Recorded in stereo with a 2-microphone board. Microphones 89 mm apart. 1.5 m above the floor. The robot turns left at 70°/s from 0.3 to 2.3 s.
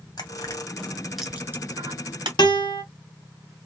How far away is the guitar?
About 0.9 m.